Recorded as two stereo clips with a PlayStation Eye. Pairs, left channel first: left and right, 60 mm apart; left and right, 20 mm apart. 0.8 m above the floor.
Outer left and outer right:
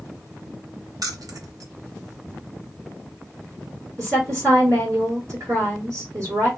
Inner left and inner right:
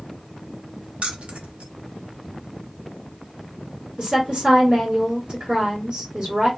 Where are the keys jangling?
75° right (ahead or behind), 0.6 m.